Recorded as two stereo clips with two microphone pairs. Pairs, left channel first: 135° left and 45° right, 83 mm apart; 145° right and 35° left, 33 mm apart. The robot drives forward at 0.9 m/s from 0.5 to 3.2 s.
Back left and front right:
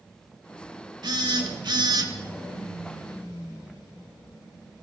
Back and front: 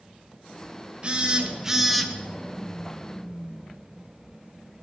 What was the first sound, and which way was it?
A phone buzzing, 25° right.